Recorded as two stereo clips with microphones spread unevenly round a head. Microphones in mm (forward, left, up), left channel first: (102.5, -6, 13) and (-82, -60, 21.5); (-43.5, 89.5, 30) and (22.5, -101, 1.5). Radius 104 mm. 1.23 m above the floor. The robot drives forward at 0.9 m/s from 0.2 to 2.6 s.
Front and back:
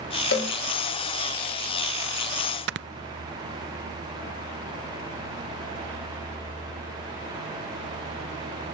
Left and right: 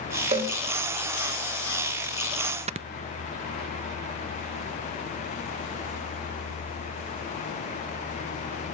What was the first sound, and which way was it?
A cowbell, 10° right.